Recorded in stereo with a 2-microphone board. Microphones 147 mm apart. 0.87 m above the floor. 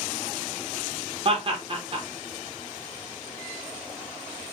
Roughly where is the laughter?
Right.